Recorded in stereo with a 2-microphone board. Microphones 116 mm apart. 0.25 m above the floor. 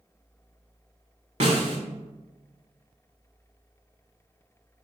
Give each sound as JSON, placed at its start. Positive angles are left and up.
{"t": 1.4, "sound": "a snare drum", "side_deg": -65, "distance_m": 0.9}